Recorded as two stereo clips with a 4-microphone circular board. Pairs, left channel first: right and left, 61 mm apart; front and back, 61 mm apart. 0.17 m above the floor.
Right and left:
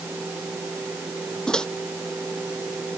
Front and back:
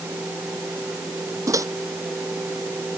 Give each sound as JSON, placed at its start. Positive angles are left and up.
{"t": 1.5, "sound": "a microwave", "azimuth_deg": -170}